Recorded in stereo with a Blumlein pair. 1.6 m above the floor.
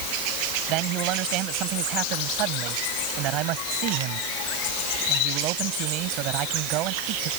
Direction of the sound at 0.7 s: 40° right.